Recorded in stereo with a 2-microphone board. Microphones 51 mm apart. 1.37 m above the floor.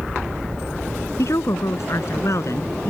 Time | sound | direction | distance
1.2 | a woman speaking | 65° left (ahead or behind) | ?